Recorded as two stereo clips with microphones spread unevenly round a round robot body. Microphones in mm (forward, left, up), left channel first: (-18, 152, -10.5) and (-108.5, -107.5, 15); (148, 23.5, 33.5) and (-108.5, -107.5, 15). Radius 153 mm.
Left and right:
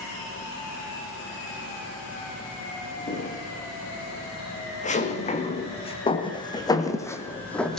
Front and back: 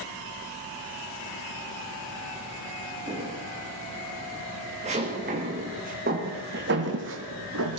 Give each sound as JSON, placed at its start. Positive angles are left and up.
{"t": 3.1, "sound": "footsteps", "azimuth_deg": 130, "distance_m": 4.5}